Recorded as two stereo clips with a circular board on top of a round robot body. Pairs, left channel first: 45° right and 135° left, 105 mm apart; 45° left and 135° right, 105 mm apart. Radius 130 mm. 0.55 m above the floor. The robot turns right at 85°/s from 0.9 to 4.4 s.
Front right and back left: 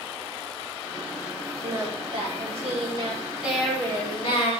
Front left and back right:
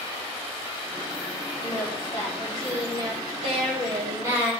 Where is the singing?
60° left, 5.5 m; by 4.5 s 60° right, 5.5 m.